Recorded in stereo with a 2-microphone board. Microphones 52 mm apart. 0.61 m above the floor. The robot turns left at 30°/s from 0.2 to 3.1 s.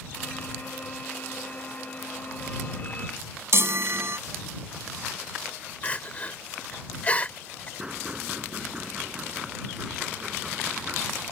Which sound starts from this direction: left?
Crying, at 5.8 s.